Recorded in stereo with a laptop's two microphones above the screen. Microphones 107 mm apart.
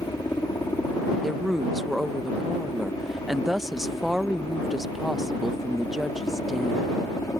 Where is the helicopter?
35° left (ahead or behind).